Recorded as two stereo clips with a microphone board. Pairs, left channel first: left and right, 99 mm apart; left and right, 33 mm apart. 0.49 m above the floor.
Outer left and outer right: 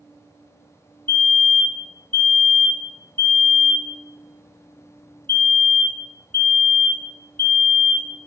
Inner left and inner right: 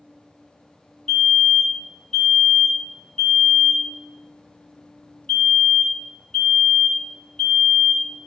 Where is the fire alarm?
20° left (ahead or behind), 1.7 m.